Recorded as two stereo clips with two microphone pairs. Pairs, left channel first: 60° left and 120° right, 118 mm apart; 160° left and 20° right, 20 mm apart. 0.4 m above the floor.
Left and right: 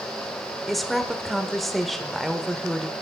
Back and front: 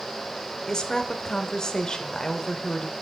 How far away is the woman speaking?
About 1.0 m.